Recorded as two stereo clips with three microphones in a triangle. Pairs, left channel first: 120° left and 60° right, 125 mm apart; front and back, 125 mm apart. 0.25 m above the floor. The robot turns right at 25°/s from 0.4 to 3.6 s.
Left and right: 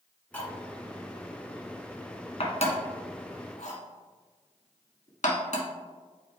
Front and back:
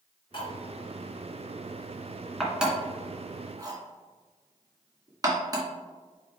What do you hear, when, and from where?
0.3 s cutlery clinking: 40° left, 1.7 m; by 5.7 s 120° left, 1.7 m